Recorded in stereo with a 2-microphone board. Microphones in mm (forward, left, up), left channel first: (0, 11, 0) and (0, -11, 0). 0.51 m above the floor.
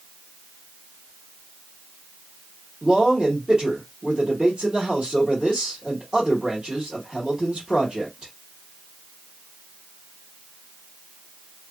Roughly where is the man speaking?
Right.